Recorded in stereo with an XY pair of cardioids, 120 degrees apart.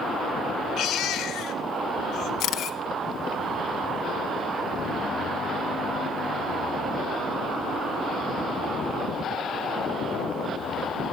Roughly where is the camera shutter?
Ahead left.